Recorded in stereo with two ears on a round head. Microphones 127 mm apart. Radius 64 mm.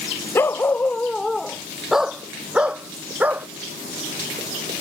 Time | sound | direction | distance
0.3 | a dog barking | 15° left (ahead or behind) | ?